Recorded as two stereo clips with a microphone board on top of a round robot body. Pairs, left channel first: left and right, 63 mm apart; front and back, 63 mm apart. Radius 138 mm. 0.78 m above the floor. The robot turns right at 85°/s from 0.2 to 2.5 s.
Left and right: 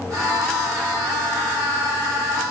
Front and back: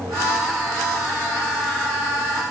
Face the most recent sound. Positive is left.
No sound to turn to.